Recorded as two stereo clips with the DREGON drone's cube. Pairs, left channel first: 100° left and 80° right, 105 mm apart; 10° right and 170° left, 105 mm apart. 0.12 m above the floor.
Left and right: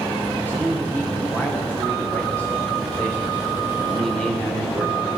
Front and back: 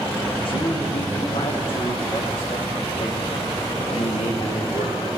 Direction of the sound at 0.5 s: 25° left.